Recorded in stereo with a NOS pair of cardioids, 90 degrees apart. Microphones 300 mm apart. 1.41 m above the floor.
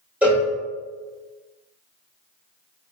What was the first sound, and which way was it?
A cowbell, 5° right.